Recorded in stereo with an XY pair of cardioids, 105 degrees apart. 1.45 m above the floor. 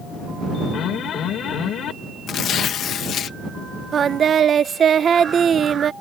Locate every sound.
0.7 s an alarm: 65° left
2.3 s tearing paper: 65° left
3.9 s singing: 50° right